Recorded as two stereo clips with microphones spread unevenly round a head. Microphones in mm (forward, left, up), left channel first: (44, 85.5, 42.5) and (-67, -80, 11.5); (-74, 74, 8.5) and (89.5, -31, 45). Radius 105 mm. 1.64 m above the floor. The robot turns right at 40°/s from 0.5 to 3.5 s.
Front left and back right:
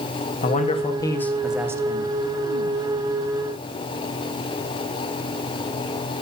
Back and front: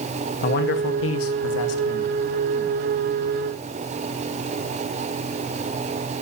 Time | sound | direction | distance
0.4 | a man speaking | 110° left | 1.3 m